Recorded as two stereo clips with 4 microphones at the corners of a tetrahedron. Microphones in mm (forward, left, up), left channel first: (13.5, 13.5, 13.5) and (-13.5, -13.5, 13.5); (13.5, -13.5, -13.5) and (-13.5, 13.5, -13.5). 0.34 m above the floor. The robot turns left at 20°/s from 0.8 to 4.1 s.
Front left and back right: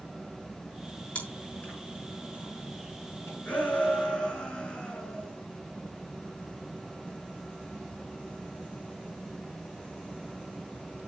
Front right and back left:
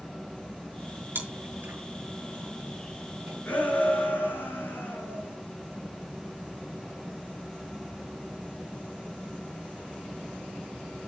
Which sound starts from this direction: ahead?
A shout, at 3.5 s.